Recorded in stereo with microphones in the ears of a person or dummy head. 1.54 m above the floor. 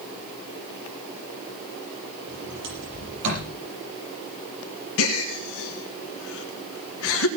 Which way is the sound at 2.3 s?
65° right (ahead or behind).